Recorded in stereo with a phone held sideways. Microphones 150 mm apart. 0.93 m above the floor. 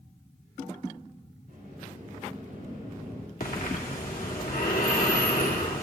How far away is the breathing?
About 2.5 m.